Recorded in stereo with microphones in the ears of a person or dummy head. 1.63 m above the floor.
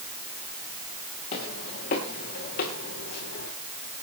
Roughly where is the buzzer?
No buzzer in this recording.